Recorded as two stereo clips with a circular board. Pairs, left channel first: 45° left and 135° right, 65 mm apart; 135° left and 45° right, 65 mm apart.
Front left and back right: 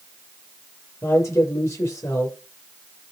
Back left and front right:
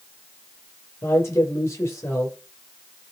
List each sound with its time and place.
1.0 s a man speaking: 85° left, 9 m